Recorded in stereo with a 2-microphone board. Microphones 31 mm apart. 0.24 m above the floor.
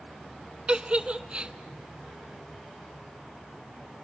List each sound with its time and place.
0.7 s a giggle: 30° right (ahead or behind), 0.8 m